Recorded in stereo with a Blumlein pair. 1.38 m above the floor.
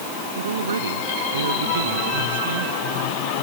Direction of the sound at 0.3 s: 70° right.